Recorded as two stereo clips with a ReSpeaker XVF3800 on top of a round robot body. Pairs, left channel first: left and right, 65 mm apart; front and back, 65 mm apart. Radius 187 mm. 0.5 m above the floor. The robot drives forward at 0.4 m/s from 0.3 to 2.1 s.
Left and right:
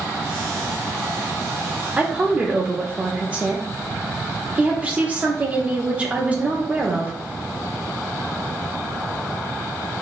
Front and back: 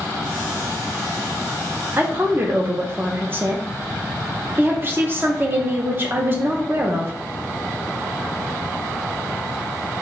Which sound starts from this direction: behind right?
A woman speaking, at 2.0 s.